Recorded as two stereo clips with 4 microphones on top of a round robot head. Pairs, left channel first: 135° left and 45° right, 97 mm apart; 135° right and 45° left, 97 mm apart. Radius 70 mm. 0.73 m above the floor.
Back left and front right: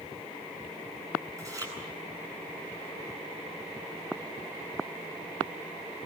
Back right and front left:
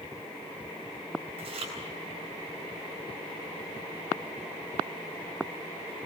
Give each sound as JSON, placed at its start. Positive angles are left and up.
{"t": 1.4, "sound": "chewing", "azimuth_deg": 15, "distance_m": 8.5}